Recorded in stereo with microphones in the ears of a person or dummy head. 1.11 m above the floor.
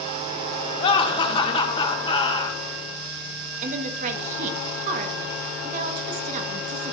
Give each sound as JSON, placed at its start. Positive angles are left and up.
{"t": 0.8, "sound": "laughter", "side_deg": 30, "distance_m": 1.6}
{"t": 3.6, "sound": "a woman speaking", "side_deg": -50, "distance_m": 1.1}